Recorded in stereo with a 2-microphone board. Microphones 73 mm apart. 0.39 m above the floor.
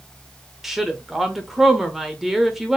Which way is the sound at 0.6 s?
5° right (ahead or behind).